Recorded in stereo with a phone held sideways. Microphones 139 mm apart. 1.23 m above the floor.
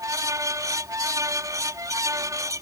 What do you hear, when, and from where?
0.0 s a fan: 25° right (ahead or behind)